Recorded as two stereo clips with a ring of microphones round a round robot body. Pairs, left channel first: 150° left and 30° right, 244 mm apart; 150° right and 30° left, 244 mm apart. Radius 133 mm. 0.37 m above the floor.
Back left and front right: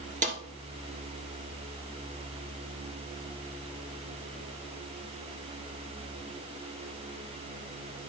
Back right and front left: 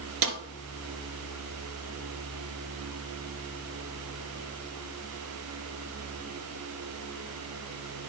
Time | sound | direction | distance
0.2 | a snare drum | 30° left | 1.5 m